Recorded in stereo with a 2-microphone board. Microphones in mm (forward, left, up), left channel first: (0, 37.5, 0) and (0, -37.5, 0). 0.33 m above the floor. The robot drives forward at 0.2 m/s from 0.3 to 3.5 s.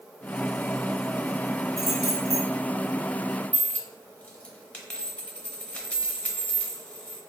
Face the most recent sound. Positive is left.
turn(degrees=20)  # may be behind; listen again after turning